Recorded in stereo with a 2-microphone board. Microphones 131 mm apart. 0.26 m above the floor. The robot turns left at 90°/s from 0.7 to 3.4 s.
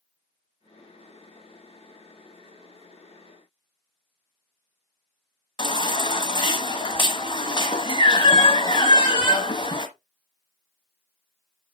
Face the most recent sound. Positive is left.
turn(degrees=40)  # may be behind; listen again after turning